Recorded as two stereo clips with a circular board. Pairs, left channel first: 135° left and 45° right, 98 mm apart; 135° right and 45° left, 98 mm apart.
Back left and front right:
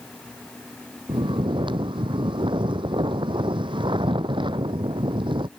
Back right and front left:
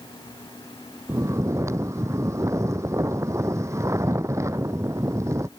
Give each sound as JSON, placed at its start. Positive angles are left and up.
{"t": 1.1, "sound": "snoring", "azimuth_deg": -15}